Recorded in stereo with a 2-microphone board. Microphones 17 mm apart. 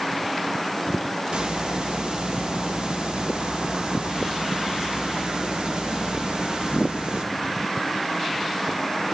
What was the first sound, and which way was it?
A hiss, 65° right (ahead or behind).